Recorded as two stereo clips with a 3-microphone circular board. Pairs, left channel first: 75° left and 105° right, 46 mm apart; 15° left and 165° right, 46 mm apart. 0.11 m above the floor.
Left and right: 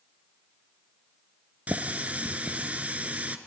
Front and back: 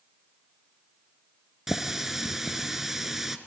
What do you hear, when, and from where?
1.7 s a running tap: 90° right, 0.9 m